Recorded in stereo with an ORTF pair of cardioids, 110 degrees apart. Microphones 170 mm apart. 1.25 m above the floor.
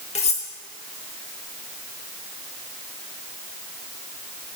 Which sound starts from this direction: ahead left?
Cutlery clinking, at 0.1 s.